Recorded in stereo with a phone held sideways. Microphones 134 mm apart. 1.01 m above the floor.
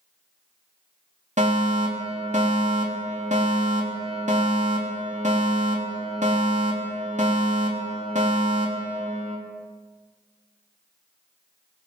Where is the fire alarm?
65° right (ahead or behind), 3.5 m.